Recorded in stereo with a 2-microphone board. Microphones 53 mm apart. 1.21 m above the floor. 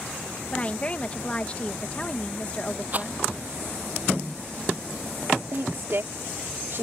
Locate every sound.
0.5 s a woman speaking: 25° left (ahead or behind)
2.9 s a rattle: 35° right (ahead or behind)
5.5 s a woman speaking: 55° right (ahead or behind)